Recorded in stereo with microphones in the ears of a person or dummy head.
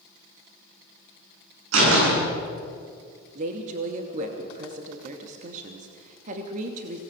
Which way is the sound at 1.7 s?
85° right.